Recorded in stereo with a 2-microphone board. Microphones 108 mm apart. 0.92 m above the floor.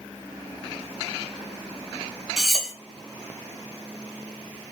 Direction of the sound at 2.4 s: Centre (ahead or behind).